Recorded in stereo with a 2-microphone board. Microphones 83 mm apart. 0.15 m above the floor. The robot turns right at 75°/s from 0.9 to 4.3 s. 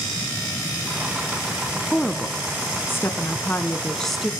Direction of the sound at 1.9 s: 10° left.